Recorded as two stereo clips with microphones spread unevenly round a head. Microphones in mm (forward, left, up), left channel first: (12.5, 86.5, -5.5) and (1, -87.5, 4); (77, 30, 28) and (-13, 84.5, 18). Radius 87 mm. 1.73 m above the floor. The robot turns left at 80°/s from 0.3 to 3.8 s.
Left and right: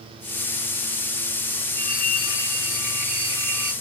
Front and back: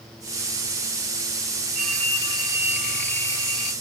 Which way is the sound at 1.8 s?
145° left.